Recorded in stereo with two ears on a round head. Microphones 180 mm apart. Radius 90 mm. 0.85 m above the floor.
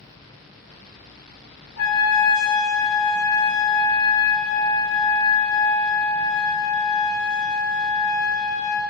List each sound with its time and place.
1.8 s a trumpet: 75° left (ahead or behind), 3 m